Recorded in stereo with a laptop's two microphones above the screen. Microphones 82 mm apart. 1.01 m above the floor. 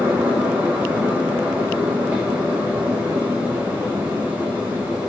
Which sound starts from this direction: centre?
A fan, at 0.0 s.